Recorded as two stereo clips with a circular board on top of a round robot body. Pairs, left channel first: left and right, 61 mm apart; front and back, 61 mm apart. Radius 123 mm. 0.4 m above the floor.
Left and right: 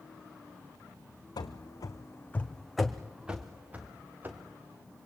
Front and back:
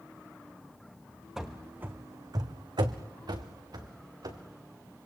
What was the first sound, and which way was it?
Running footsteps, 95° left.